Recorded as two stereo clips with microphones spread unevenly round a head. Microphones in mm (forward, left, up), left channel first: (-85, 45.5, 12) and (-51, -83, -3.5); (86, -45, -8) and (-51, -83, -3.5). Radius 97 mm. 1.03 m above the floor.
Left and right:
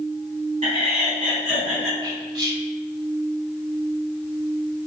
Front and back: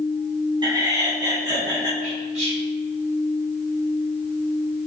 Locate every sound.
0.6 s laughter: 105° right, 3.5 m
2.0 s whispering: 125° right, 3.5 m